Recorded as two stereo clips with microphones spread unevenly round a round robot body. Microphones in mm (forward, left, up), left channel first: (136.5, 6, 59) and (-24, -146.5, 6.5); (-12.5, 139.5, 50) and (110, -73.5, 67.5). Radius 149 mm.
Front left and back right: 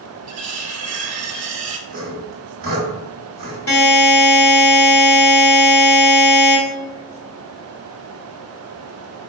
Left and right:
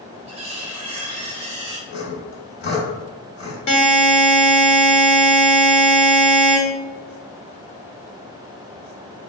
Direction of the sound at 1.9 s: 175° left.